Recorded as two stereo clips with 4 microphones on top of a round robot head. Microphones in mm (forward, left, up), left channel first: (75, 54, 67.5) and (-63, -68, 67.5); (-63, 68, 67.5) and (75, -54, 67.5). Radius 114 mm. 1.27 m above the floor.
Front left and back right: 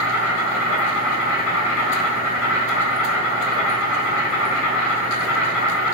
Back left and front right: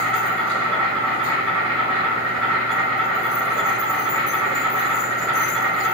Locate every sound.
0.0 s an insect: 50° left, 1.6 m